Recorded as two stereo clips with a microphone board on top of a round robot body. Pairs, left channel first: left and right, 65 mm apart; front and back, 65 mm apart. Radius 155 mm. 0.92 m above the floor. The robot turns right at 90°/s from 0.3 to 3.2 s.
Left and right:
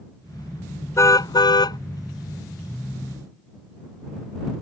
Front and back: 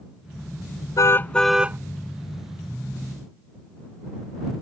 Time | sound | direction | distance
1.0 | a car horn | 40° left | ?